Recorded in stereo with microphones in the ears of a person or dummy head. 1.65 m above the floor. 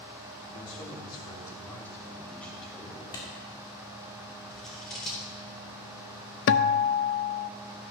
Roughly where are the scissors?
Centre.